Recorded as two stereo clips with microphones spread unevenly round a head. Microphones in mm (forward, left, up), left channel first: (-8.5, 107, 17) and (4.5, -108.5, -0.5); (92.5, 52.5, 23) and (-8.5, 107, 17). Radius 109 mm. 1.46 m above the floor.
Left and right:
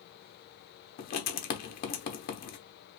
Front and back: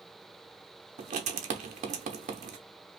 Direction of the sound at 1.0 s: 140° left.